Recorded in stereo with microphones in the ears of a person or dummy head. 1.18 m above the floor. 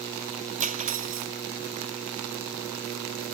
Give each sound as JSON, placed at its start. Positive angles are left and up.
{"t": 0.6, "sound": "cutlery clinking", "side_deg": -35}